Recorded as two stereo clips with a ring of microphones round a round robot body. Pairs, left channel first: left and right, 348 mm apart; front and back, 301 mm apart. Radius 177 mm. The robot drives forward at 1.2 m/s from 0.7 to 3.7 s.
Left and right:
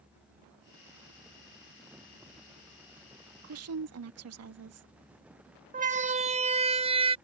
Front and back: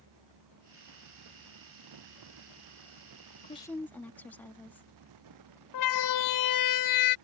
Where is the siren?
25° right; by 7.2 s 15° right.